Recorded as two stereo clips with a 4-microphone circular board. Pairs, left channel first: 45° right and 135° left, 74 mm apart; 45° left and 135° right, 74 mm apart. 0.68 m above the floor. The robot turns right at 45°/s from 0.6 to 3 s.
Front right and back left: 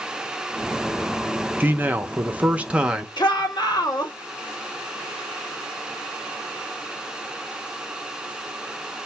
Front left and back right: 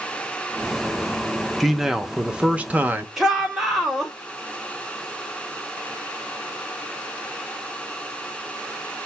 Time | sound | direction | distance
1.6 | a man speaking | 135° left | 0.6 m
3.2 | a shout | 50° right | 1.5 m